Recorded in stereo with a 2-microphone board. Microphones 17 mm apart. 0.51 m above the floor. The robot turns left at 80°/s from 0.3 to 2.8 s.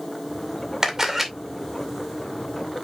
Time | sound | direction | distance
0.8 | a camera shutter | 140° right | 2 m